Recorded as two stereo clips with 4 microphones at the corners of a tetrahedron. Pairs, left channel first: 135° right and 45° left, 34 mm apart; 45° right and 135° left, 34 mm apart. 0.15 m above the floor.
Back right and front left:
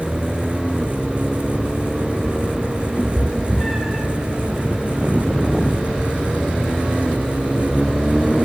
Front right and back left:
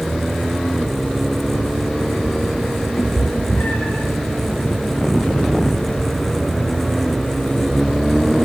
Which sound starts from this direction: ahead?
A cat meowing, at 3.0 s.